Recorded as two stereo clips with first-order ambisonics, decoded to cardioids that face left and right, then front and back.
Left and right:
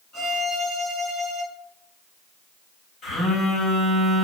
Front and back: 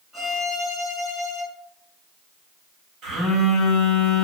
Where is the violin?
120° left, 1.4 m.